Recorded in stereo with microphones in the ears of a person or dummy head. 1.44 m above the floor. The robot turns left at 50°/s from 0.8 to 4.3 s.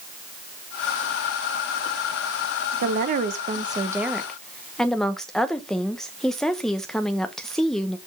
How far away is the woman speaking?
About 0.8 m.